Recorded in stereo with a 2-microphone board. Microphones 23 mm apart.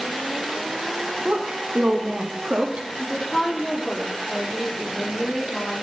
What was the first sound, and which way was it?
A woman speaking, 50° right (ahead or behind).